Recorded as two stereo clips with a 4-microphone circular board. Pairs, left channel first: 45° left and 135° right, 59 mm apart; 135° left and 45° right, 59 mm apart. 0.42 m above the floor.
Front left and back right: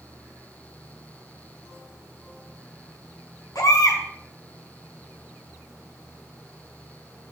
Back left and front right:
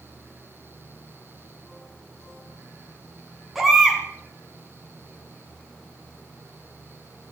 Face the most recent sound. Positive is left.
turn(degrees=40)